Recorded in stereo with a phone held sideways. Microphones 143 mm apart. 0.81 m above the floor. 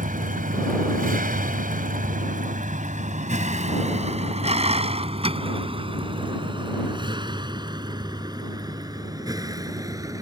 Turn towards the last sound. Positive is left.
turn(degrees=-25)  # may be behind; listen again after turning